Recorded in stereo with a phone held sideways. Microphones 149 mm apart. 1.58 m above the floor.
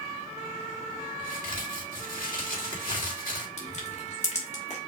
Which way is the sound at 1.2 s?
75° left (ahead or behind).